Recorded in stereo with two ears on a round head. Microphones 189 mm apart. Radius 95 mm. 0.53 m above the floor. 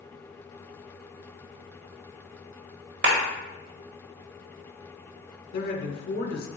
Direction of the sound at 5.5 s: 45° left (ahead or behind).